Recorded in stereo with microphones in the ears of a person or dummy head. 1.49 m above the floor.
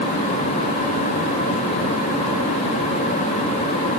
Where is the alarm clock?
I don't hear an alarm clock.